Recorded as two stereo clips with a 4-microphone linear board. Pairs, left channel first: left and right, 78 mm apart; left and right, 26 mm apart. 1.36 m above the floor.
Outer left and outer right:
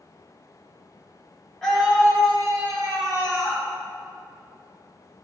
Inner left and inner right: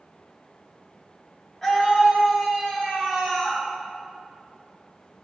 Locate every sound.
1.6 s a scream: 5° left (ahead or behind), 2.0 m; by 3.6 s 10° right (ahead or behind), 3 m